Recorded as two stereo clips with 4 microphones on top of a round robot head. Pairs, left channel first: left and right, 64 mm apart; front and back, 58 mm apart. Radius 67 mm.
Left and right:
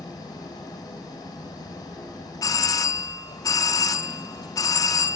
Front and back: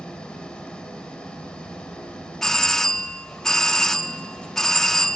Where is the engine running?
75° left, 3.5 m.